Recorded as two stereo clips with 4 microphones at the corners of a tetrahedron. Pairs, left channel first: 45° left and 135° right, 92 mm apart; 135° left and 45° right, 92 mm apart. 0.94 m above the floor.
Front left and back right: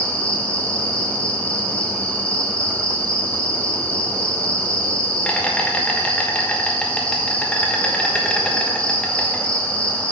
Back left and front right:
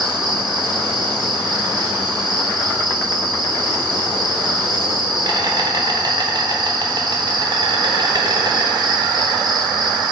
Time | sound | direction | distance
0.0 | an insect | 30° right | 1.2 m